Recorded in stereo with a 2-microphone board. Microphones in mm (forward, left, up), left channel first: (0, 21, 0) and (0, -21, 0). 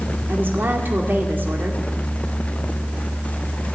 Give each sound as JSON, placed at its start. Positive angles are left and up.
{"t": 0.3, "sound": "a woman speaking", "side_deg": -55, "distance_m": 1.9}